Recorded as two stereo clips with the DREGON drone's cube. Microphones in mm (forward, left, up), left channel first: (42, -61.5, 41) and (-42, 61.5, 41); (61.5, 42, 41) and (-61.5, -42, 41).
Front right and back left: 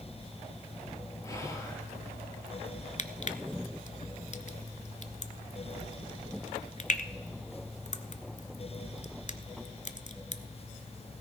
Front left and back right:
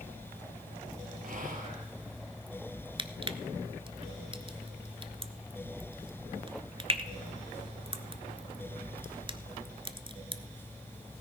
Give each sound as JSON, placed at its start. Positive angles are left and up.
{"t": 1.2, "sound": "whispering", "azimuth_deg": -125, "distance_m": 3.0}
{"t": 3.0, "sound": "crushing", "azimuth_deg": -90, "distance_m": 0.6}